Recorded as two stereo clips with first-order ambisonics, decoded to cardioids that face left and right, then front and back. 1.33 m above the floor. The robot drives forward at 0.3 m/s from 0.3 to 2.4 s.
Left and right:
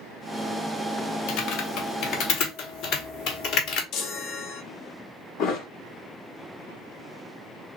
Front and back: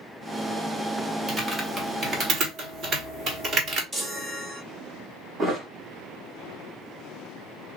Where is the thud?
120° left, 1.1 m.